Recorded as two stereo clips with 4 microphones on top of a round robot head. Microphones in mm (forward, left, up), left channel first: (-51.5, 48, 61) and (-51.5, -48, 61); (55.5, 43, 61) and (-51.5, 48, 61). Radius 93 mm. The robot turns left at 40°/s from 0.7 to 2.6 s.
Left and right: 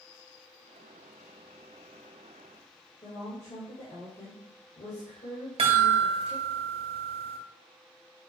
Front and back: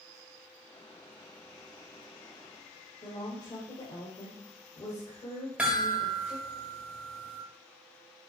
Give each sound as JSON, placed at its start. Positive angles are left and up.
{"t": 3.0, "sound": "a woman speaking", "azimuth_deg": 40, "distance_m": 2.5}
{"t": 5.6, "sound": "a chime", "azimuth_deg": -100, "distance_m": 1.8}